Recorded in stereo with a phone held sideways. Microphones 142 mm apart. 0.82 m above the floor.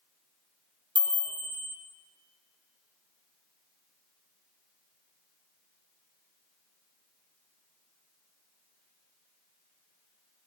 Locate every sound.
0.9 s a chime: 35° right (ahead or behind), 0.7 m